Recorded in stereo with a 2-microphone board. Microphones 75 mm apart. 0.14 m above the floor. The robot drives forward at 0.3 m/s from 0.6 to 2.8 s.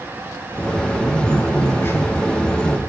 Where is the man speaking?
35° left (ahead or behind), 1.4 m; by 2.8 s 30° left (ahead or behind), 1.7 m.